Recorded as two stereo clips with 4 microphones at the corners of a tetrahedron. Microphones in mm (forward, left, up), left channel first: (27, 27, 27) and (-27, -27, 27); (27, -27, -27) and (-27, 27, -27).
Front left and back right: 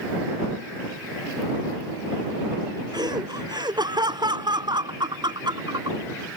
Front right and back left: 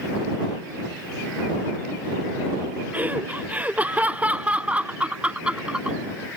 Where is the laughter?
160° right; by 6.0 s 150° right.